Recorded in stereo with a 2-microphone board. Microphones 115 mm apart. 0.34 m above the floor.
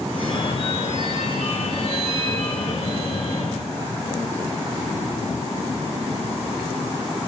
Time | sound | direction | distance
0.1 | a phone ringing | 65° left (ahead or behind) | 3.5 m